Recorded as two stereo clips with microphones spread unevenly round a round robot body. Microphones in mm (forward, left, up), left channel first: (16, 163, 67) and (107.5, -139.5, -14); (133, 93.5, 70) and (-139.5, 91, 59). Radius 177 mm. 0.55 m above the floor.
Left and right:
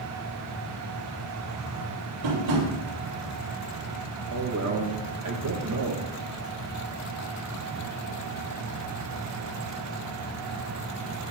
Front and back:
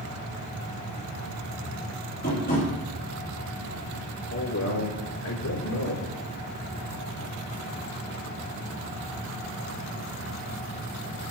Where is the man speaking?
40° right, 2 m.